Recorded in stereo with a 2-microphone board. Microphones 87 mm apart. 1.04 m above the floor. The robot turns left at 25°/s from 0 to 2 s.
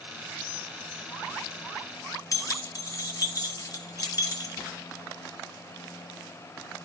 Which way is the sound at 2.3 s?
45° left (ahead or behind).